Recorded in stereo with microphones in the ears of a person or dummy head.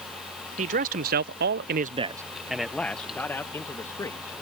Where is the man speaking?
45° right (ahead or behind); by 4.3 s 20° left (ahead or behind).